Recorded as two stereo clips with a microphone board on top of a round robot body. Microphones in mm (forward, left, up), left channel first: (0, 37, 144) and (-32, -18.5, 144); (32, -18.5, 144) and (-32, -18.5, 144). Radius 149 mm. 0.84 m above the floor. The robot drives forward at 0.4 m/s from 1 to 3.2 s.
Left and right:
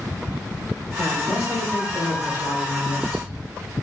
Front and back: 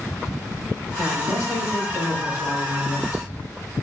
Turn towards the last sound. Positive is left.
turn(degrees=40)